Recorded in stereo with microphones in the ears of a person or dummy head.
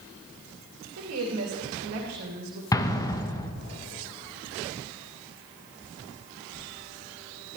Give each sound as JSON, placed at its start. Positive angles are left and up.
{"t": 1.0, "sound": "a woman speaking", "side_deg": -85, "distance_m": 2.5}
{"t": 2.7, "sound": "an explosion", "side_deg": 15, "distance_m": 0.9}